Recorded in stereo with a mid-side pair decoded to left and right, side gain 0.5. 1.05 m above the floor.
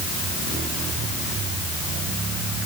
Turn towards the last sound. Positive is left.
No sound to turn to.